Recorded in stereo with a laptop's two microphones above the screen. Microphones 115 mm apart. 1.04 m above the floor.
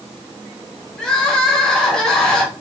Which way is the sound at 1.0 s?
5° left (ahead or behind).